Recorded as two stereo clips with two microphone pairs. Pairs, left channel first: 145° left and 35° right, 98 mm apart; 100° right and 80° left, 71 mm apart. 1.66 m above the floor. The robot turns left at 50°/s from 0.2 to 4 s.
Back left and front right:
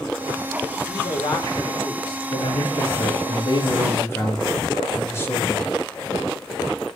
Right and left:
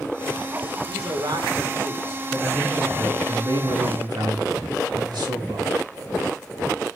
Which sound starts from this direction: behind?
A man speaking, at 2.3 s.